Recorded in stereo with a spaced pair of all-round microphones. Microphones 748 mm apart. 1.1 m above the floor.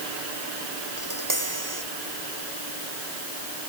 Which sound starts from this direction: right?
Tapping, at 1.0 s.